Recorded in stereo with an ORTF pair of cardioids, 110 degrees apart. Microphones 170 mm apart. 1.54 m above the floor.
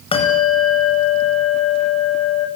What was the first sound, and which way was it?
A bell, 35° left.